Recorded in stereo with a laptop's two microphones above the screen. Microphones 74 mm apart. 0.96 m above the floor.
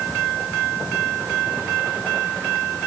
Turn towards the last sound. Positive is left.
No sound to turn to.